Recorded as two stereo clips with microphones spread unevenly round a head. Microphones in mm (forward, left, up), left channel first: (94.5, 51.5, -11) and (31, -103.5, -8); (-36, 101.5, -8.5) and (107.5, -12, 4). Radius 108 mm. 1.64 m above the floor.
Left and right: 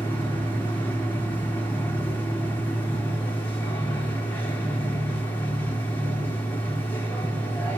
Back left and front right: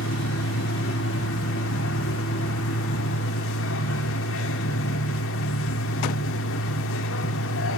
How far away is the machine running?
About 2 m.